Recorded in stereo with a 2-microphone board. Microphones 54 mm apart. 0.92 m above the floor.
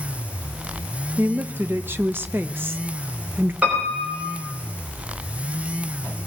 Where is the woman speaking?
40° right (ahead or behind), 0.6 m.